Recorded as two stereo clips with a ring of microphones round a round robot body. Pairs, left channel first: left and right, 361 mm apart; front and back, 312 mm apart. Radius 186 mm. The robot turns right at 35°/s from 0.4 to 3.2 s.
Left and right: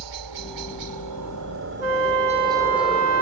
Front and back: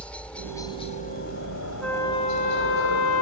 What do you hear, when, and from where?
0.0 s a helicopter: 85° right; by 3.2 s 10° left
1.8 s a flute: 90° right; by 3.2 s 40° right